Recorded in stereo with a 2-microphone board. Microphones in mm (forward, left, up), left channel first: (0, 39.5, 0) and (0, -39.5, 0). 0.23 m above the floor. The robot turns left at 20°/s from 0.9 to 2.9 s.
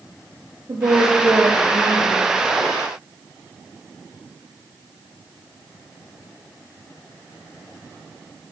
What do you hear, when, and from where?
0.7 s a woman speaking: 55° right (ahead or behind), 4.5 m; by 2.2 s 30° right (ahead or behind), 4.5 m